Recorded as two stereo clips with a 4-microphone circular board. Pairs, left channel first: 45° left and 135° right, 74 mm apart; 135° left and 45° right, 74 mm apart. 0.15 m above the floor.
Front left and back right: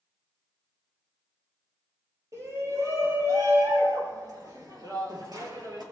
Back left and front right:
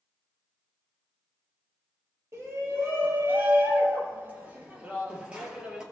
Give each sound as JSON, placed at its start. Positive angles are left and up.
{"t": 2.3, "sound": "a shout", "azimuth_deg": -95, "distance_m": 4.0}